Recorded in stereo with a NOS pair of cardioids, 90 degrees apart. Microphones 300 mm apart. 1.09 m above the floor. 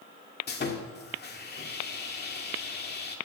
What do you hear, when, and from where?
0.5 s sawing: 35° left, 1.9 m